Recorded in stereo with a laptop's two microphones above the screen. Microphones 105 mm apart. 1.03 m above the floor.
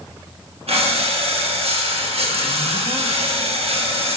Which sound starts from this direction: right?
Breathing, at 0.7 s.